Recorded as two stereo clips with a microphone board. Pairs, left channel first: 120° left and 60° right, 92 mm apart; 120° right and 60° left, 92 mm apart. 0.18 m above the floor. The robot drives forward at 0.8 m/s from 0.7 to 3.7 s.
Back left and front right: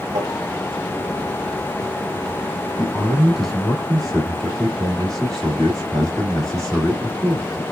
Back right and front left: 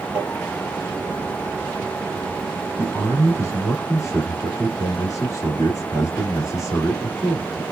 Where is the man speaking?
115° right, 1.3 m; by 7.6 s 155° right, 1.6 m.